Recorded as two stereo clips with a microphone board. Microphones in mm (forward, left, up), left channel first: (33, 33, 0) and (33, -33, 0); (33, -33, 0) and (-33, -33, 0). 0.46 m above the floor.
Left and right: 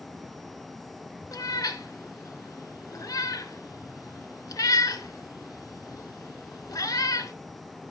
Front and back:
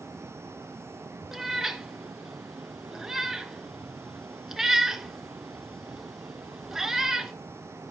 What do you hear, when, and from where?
1.3 s a cat meowing: 100° left, 0.7 m